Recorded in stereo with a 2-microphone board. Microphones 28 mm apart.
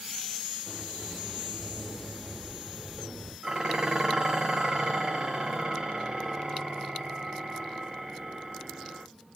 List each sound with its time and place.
0.7 s a sliding door: 25° right (ahead or behind), 1.3 m
3.4 s dishes clattering: 30° right (ahead or behind), 0.5 m